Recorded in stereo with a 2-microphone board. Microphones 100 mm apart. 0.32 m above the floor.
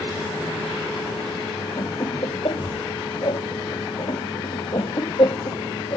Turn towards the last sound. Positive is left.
turn(degrees=55)  # may be behind; listen again after turning